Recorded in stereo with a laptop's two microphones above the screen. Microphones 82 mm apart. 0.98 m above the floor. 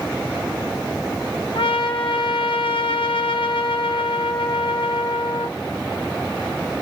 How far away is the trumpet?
About 0.8 m.